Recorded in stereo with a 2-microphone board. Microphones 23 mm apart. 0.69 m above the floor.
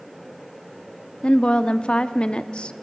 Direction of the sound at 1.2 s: 50° left (ahead or behind).